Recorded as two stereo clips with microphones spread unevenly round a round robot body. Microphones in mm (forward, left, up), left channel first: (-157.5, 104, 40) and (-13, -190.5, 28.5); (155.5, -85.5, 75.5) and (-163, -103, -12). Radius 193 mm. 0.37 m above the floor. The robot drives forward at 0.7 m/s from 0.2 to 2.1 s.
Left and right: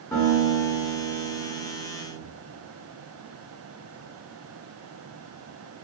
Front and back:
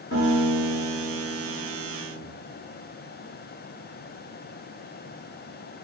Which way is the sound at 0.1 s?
50° left.